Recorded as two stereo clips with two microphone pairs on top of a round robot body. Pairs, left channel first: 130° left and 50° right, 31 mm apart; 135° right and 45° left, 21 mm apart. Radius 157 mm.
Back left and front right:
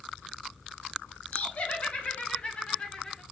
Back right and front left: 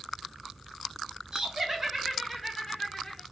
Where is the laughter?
95° left, 1.3 m; by 3.2 s 155° right, 1.1 m.